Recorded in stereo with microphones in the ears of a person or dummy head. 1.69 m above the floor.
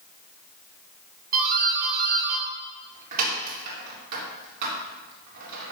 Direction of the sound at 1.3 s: 50° right (ahead or behind).